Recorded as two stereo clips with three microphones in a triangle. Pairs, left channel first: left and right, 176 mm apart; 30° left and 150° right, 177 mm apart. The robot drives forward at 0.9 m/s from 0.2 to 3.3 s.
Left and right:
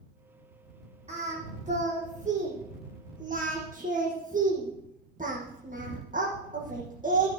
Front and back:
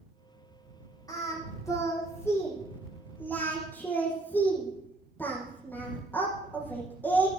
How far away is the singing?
About 9.5 m.